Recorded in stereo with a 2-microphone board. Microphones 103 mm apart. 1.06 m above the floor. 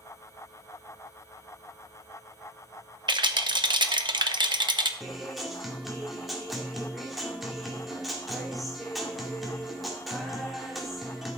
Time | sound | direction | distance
3.1 | a rattle | 50° right (ahead or behind) | 0.9 m
5.0 | a guitar | centre (ahead or behind) | 1.8 m